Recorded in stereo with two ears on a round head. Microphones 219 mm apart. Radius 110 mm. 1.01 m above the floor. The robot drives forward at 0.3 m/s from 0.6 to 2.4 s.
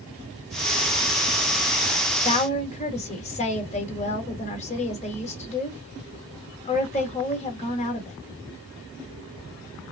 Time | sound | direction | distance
2.2 | a woman speaking | 30° left (ahead or behind) | 1.1 m